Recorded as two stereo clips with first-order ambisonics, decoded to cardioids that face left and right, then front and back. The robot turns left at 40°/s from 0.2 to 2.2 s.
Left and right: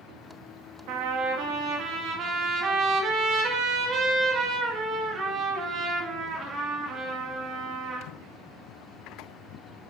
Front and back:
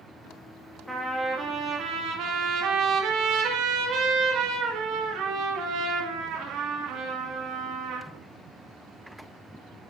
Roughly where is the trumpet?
Right.